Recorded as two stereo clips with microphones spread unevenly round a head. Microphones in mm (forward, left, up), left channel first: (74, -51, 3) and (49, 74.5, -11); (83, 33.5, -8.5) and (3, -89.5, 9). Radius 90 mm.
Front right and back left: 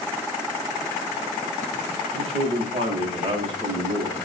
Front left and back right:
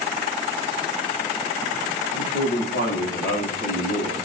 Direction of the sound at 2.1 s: 60° left.